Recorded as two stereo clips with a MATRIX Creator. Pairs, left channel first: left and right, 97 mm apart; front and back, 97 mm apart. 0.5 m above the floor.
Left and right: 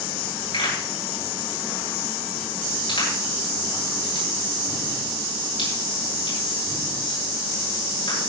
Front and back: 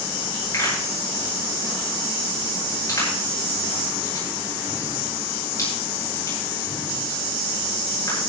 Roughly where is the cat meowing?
I don't hear a cat meowing.